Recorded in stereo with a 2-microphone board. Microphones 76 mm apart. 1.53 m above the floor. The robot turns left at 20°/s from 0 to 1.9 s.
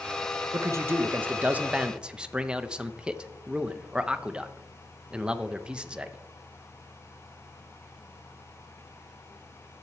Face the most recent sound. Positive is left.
turn(degrees=-10)  # may be behind; listen again after turning